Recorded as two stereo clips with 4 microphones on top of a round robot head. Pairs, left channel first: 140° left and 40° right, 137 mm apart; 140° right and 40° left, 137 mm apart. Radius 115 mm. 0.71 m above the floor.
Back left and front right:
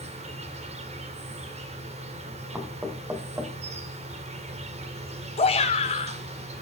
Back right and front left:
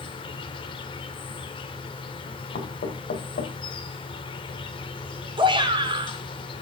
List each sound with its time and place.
0.0 s an insect: 85° right, 1.8 m
2.5 s knocking: 120° right, 2.5 m
5.4 s a shout: 95° left, 3 m